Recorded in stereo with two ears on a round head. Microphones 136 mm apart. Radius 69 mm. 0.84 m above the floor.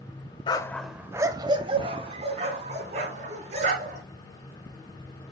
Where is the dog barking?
30° left (ahead or behind), 0.7 m; by 4.0 s 50° right (ahead or behind), 4 m.